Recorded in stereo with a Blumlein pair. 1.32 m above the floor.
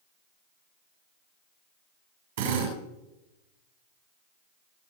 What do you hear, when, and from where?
2.4 s a drill: 60° right, 8 m